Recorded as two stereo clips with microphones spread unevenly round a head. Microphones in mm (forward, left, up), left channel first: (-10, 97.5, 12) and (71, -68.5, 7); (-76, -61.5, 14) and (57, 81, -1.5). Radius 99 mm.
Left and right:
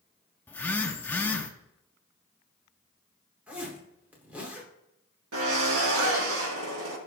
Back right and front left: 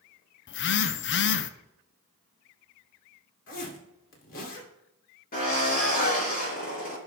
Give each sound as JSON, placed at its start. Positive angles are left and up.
{"t": 0.5, "sound": "a phone buzzing", "azimuth_deg": -165, "distance_m": 0.5}
{"t": 3.5, "sound": "a zipper", "azimuth_deg": -145, "distance_m": 2.5}
{"t": 5.3, "sound": "a drill", "azimuth_deg": -85, "distance_m": 4.0}